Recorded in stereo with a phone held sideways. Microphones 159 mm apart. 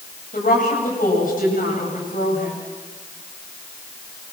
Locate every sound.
0.3 s a woman speaking: 60° left (ahead or behind), 9 m